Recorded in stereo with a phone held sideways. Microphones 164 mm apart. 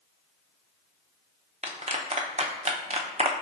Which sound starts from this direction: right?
A clap, at 1.6 s.